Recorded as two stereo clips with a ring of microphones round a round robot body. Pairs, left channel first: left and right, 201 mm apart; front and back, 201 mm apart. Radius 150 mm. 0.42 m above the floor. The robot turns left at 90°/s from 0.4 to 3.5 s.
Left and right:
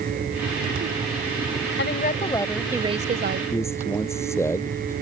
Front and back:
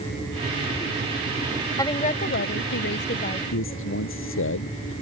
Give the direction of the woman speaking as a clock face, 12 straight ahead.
10 o'clock.